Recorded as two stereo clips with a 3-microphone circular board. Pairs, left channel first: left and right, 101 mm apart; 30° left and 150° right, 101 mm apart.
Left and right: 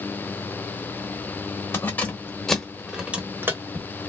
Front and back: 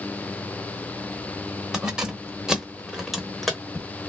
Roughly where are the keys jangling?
Behind left.